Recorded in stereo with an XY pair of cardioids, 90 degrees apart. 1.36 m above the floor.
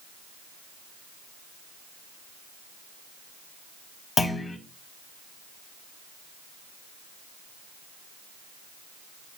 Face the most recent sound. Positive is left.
turn(degrees=40)